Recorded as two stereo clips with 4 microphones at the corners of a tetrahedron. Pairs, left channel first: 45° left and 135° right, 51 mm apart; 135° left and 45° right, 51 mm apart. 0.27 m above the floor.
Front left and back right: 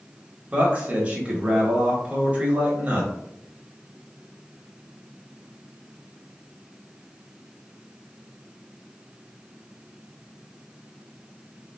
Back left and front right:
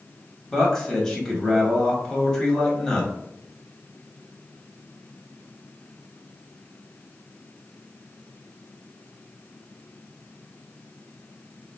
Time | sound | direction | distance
0.5 | a man speaking | 155° right | 1.0 m